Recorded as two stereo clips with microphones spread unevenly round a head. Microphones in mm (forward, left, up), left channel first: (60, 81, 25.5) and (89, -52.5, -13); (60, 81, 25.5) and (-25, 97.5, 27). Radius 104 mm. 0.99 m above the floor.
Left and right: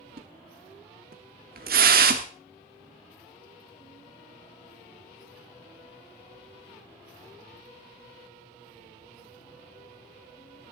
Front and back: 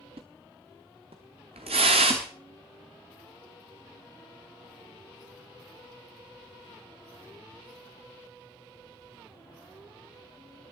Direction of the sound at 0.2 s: 130° right.